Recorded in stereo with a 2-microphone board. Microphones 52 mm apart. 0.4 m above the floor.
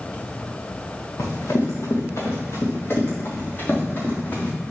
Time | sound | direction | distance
1.2 | running footsteps | 70° left (ahead or behind) | 2.5 m